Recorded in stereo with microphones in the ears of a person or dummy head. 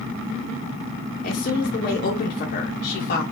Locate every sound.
1.2 s a woman speaking: 50° left (ahead or behind), 1.3 m